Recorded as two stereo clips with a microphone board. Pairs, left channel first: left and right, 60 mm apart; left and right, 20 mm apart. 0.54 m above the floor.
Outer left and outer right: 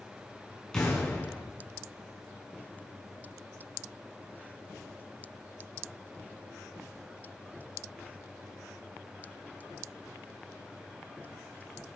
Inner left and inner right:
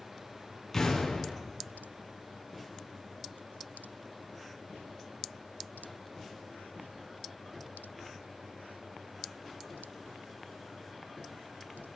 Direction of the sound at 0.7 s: 15° left (ahead or behind).